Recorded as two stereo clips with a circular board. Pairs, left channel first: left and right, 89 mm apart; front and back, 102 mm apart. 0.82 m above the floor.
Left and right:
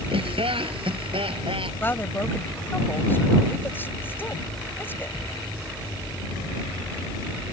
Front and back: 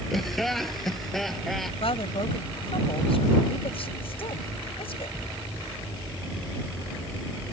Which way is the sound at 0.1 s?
90° right.